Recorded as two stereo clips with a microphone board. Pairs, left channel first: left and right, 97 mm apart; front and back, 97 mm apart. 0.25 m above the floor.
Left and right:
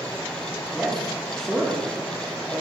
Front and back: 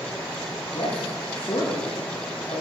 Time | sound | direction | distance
0.7 | a man speaking | straight ahead | 5.5 m